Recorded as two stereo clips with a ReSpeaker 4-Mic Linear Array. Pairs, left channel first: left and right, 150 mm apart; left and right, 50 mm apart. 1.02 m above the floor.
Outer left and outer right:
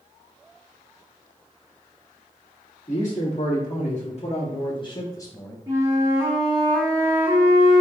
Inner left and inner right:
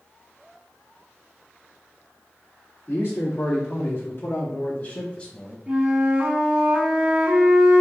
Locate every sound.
2.9 s a man speaking: 50° left (ahead or behind), 1.8 m; by 5.6 s 10° left (ahead or behind), 1.1 m
5.7 s a flute: 25° right (ahead or behind), 1.5 m